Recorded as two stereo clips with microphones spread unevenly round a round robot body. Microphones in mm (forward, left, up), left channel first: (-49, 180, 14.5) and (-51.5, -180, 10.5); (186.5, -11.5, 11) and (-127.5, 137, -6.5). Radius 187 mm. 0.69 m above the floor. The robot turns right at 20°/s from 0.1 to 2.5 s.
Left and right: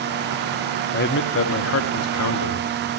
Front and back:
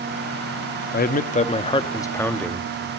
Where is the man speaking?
35° left, 1.3 m; by 2.7 s 65° left, 1.3 m.